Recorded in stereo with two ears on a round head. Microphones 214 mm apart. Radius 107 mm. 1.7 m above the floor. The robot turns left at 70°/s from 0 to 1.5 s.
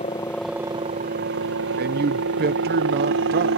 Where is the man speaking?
40° right (ahead or behind).